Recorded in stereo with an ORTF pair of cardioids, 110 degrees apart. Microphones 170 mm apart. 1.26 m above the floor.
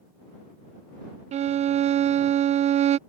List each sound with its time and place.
1.3 s a violin: 40° right